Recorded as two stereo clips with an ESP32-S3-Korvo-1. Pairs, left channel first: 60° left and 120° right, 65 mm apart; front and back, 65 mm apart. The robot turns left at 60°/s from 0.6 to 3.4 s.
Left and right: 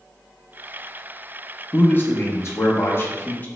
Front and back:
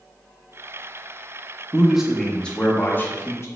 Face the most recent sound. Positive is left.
turn(degrees=15)